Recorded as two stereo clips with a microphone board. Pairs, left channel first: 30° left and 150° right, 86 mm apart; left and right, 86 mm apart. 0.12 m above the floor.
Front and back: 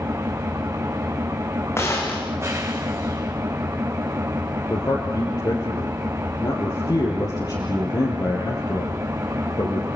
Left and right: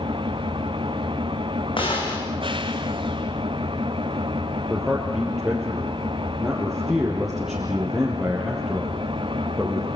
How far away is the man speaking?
About 3.5 m.